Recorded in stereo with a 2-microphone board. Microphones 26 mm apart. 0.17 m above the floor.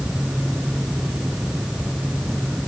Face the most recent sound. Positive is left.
No sound to turn to.